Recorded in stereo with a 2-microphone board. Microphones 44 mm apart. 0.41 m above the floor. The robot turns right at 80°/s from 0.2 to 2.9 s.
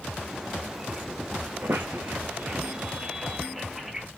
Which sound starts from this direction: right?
A squeak, at 1.6 s.